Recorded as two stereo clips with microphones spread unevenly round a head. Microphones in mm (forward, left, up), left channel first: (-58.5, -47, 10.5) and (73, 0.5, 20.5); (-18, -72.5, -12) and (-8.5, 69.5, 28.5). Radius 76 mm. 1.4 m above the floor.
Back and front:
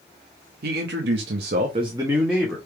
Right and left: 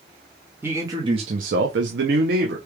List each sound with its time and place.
0.6 s a man speaking: 10° left, 1.1 m; by 2.6 s 115° left, 1.1 m